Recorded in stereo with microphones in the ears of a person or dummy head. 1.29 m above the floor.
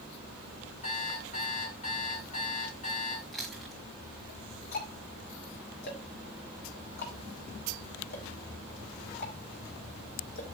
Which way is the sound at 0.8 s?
40° left (ahead or behind).